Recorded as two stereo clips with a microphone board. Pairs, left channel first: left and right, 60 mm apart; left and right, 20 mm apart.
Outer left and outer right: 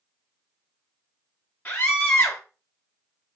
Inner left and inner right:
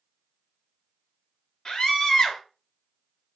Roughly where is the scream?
Left.